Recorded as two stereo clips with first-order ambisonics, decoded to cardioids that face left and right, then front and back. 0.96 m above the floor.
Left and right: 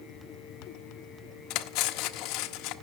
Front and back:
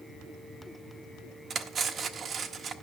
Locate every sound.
1.5 s cutlery clinking: 115° left, 0.6 m